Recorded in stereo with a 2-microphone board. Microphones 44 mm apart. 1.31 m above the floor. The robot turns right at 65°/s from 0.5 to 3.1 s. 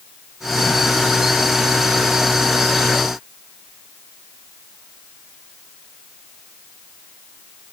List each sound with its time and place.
Only background noise.